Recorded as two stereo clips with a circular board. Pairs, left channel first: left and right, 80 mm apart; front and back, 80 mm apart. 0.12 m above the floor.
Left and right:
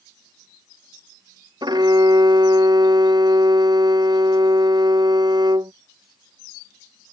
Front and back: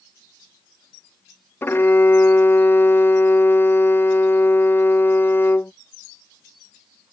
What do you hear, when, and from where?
1.6 s a violin: 60° right